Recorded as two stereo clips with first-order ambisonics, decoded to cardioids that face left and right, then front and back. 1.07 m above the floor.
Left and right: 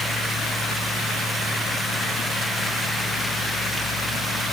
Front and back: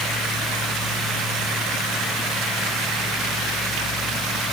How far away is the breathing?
I don't hear breathing.